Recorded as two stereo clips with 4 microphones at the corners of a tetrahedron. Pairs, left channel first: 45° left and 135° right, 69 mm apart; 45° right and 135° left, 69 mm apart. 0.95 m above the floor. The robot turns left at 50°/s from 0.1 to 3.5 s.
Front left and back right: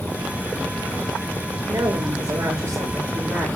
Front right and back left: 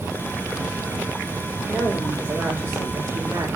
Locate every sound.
1.7 s a woman speaking: 125° right, 4.5 m; by 3.5 s 145° left, 4.5 m